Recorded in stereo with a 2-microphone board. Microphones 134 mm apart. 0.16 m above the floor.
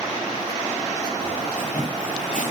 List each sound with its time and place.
1.2 s footsteps: 75° left (ahead or behind), 7 m